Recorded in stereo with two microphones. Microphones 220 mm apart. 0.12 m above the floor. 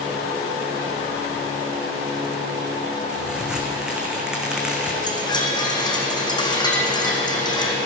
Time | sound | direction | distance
3.1 | a crack | 5° right (ahead or behind) | 2.0 m
5.0 | a chime | 20° left (ahead or behind) | 2 m